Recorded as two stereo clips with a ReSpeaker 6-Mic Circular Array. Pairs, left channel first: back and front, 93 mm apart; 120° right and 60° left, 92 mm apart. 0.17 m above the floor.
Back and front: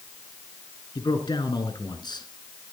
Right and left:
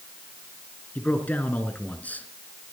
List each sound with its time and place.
0.9 s a man speaking: 170° left, 2 m